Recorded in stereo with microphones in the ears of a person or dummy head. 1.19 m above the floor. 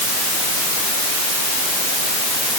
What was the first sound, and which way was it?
Only background noise.